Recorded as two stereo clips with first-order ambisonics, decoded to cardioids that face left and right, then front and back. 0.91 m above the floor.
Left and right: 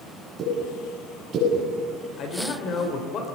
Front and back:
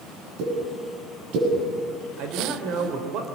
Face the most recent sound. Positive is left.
turn(degrees=140)